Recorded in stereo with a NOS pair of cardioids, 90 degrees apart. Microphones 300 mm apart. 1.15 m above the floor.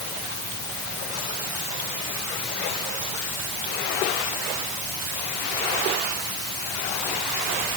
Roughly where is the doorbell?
No doorbell in this recording.